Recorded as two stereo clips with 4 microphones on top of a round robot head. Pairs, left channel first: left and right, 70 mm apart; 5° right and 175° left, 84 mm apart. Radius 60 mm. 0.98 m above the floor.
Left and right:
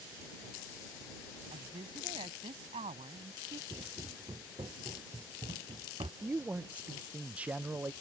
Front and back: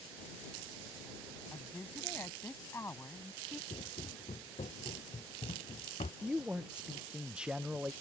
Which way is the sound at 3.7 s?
40° right.